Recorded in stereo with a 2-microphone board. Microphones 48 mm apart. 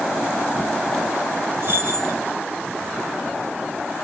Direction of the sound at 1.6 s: 50° right (ahead or behind).